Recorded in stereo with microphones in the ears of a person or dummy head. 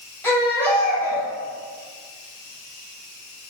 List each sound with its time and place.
0.2 s a baby crying: 10° left (ahead or behind), 1.8 m